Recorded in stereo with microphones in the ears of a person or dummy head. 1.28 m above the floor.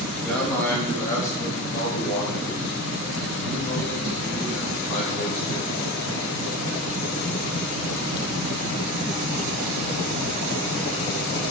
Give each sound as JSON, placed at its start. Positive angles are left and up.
{"t": 0.2, "sound": "a man speaking", "side_deg": 5, "distance_m": 2.5}